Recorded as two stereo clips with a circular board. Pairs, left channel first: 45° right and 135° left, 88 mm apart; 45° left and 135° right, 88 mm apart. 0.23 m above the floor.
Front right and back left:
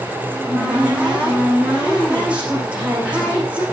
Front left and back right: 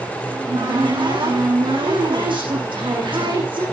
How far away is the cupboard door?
About 8.5 m.